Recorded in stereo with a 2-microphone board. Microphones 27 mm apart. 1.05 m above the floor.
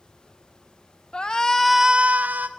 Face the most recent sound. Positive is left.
turn(degrees=-80)